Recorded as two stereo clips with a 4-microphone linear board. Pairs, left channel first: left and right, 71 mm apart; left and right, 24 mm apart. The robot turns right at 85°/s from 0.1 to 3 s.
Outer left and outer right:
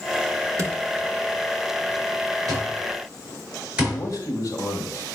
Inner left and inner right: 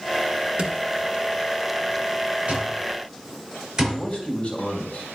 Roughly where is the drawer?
Right.